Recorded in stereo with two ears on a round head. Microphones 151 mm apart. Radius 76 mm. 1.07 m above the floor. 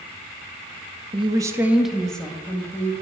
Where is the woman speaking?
30° right (ahead or behind), 0.8 m; by 2.9 s 15° left (ahead or behind), 2.0 m.